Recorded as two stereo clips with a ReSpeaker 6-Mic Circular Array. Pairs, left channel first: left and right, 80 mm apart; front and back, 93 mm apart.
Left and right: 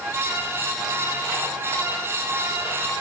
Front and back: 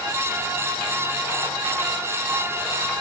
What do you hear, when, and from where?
Only background noise.